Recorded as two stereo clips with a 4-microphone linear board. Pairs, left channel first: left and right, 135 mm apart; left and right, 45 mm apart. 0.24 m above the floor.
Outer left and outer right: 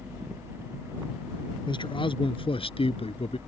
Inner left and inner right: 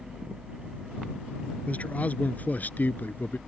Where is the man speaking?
35° left (ahead or behind); by 3.4 s 50° left (ahead or behind).